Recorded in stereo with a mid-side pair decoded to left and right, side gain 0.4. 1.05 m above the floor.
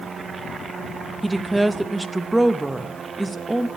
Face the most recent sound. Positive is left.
turn(degrees=-20)